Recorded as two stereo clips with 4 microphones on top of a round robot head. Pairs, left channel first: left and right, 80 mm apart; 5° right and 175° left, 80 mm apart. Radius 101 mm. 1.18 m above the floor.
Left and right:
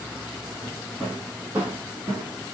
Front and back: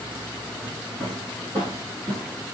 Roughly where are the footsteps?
Behind.